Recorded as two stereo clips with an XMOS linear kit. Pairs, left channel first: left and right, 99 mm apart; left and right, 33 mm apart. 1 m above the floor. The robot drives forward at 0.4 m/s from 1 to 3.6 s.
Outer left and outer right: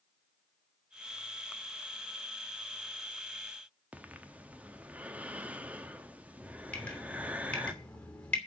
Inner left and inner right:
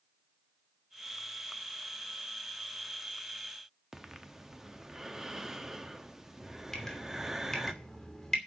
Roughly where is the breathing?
Centre.